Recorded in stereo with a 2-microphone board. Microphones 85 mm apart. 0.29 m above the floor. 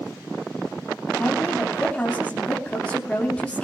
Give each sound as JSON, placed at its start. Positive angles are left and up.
{"t": 1.2, "sound": "a woman speaking", "side_deg": 15, "distance_m": 2.5}